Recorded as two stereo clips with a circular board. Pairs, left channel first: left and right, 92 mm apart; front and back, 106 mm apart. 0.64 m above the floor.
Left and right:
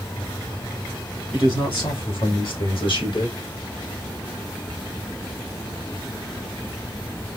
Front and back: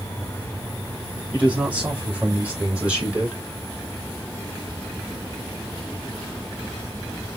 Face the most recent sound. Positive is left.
turn(degrees=100)